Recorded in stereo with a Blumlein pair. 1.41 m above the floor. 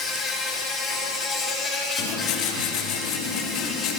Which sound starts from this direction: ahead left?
Writing, at 2.0 s.